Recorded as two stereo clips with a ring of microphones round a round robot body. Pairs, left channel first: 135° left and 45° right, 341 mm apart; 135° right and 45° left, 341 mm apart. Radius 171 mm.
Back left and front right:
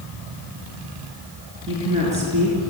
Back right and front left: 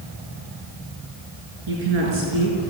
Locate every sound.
1.7 s a woman speaking: 30° left, 6 m; by 2.7 s 20° left, 4.5 m